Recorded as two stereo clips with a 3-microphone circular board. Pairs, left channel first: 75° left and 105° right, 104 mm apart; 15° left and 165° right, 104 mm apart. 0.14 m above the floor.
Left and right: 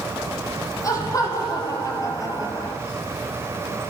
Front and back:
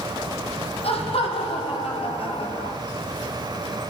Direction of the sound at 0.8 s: 20° left.